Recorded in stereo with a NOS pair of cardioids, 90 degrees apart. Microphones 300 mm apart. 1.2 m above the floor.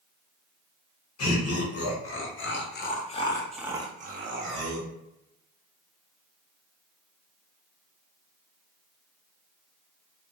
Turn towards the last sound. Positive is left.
turn(degrees=-80)